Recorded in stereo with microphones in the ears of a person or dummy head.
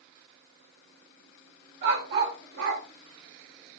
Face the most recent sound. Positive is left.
turn(degrees=-70)  # may be behind; listen again after turning